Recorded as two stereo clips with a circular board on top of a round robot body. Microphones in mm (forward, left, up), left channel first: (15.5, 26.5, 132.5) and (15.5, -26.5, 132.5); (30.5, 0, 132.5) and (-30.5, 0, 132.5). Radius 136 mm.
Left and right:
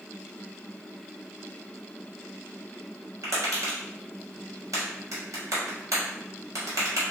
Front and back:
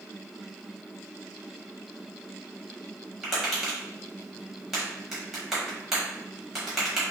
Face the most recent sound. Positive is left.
turn(degrees=-95)